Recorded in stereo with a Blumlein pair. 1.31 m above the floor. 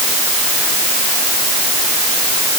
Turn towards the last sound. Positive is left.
No sound to turn to.